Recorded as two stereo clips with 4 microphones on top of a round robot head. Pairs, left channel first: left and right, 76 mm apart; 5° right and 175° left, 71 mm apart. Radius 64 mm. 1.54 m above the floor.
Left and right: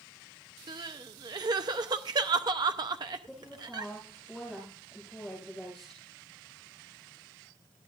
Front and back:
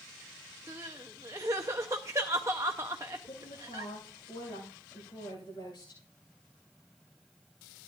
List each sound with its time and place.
0.7 s crying: 120° right, 0.7 m
3.3 s a woman speaking: straight ahead, 8 m